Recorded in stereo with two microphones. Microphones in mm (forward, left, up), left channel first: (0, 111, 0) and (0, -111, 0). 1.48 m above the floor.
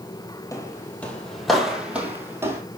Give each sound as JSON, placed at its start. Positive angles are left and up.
{"t": 0.5, "sound": "footsteps", "side_deg": 15, "distance_m": 2.0}